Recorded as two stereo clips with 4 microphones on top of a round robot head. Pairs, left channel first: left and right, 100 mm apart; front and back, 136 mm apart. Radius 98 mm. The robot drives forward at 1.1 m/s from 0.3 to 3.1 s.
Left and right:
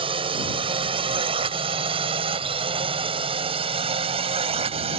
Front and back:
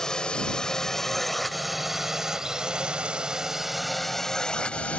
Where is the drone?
90° right; by 5.0 s 85° right.